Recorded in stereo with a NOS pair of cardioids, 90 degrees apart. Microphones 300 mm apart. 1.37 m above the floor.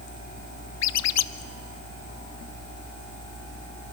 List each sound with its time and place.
0.8 s a squeak: 65° left, 0.7 m